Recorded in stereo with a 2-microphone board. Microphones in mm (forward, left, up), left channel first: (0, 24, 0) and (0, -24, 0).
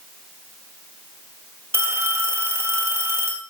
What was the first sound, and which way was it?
A phone ringing, 60° right (ahead or behind).